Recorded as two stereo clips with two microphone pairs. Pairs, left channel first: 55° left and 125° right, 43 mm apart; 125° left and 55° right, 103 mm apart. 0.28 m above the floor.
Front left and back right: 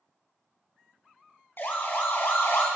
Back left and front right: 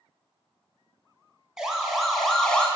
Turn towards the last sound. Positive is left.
turn(degrees=45)